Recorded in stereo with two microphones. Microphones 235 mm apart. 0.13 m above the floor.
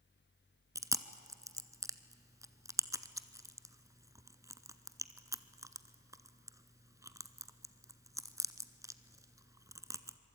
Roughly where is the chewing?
Centre.